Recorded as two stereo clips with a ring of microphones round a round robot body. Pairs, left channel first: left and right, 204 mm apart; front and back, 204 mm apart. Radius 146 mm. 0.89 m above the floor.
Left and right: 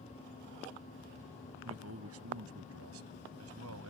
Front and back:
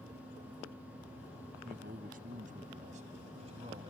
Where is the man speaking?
120° right; by 3.9 s 105° right.